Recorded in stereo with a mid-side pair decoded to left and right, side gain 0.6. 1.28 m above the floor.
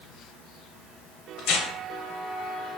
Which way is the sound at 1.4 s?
65° left.